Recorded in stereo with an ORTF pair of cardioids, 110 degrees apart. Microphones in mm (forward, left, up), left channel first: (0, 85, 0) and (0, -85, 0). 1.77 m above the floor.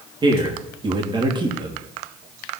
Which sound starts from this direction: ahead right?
A man speaking, at 0.2 s.